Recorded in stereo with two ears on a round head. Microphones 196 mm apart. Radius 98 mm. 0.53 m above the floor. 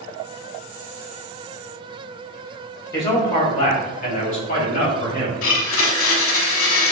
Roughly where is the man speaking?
Centre.